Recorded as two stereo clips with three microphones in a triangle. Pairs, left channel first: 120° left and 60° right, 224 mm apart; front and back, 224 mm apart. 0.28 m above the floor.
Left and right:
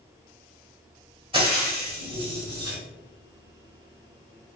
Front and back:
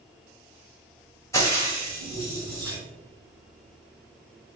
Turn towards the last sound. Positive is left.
turn(degrees=-50)